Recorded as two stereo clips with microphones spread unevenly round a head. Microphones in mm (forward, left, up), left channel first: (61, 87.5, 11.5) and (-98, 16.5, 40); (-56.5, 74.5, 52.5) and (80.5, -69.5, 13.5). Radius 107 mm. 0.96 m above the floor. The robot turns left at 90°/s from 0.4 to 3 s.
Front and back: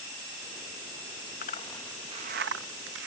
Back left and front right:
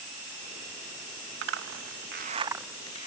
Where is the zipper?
20° right; by 3.1 s 165° right.